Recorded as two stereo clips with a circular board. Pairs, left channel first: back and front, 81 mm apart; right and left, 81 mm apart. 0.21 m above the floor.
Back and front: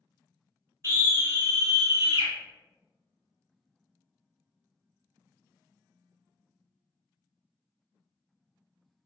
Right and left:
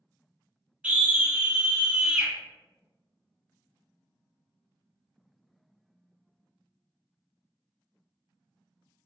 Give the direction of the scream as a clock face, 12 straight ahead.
11 o'clock.